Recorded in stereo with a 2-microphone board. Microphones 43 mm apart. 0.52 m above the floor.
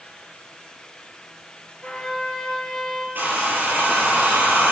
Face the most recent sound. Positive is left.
turn(degrees=-45)  # may be behind; listen again after turning